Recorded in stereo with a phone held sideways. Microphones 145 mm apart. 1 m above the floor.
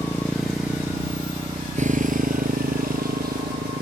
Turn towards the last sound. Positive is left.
turn(degrees=-90)